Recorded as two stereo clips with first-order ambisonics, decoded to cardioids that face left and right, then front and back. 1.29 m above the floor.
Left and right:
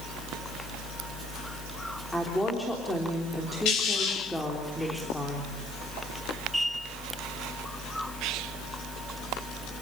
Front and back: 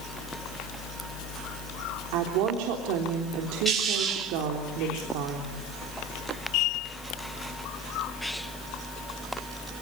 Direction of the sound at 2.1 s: 175° left.